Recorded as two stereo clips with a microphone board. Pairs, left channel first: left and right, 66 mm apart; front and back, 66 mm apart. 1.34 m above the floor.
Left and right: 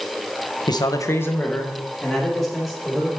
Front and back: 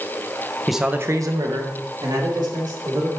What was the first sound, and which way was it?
A man speaking, 85° left.